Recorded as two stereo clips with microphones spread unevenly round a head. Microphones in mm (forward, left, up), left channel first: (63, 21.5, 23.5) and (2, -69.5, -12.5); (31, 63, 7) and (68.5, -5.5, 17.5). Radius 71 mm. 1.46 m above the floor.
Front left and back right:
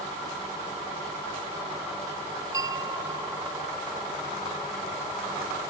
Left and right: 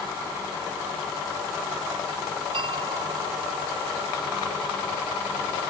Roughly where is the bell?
Ahead right.